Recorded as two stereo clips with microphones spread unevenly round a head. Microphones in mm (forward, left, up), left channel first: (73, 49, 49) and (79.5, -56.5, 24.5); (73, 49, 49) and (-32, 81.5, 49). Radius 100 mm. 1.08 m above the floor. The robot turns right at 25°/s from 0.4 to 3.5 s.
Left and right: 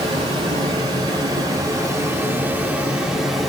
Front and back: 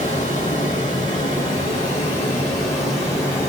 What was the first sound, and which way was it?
Running water, 55° right.